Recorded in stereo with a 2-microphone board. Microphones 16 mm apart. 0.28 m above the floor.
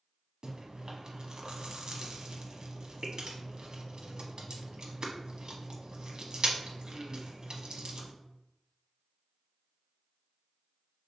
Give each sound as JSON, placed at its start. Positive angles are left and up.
{"t": 0.4, "sound": "chewing", "side_deg": -55, "distance_m": 0.9}